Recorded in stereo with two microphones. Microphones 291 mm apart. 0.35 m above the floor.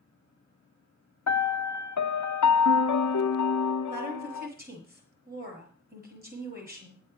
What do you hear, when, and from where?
1.3 s a piano: 70° left (ahead or behind), 0.6 m
3.9 s a woman speaking: 30° right (ahead or behind), 6.5 m